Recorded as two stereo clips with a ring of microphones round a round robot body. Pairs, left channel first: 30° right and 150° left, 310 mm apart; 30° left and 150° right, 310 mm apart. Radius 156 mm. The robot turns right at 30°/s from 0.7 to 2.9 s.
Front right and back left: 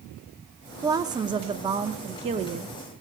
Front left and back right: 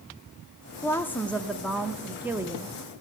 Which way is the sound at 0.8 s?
95° left.